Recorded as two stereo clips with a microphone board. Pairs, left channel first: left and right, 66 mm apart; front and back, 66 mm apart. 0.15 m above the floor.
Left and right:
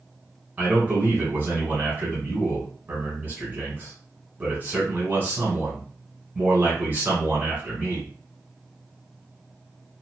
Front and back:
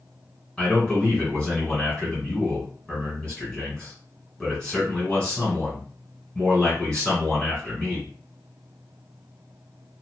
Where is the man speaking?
60° right, 1.6 m.